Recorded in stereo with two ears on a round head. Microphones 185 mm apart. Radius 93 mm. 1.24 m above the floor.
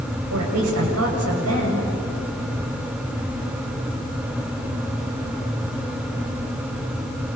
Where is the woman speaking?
85° right, 7.5 m.